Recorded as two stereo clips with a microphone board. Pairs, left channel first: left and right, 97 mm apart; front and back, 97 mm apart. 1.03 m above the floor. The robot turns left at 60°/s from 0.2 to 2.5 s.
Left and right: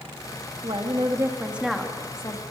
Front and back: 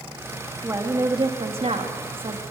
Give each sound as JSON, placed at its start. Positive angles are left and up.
{"t": 0.6, "sound": "a woman speaking", "azimuth_deg": -115, "distance_m": 2.0}